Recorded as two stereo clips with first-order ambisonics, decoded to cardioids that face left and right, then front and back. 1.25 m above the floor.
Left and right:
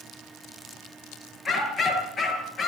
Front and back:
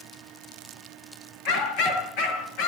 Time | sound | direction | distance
1.4 | a dog barking | 25° left | 7 m